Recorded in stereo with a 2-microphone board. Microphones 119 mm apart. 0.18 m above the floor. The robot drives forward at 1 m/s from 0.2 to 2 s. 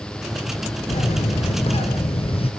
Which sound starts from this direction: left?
A bird, at 0.9 s.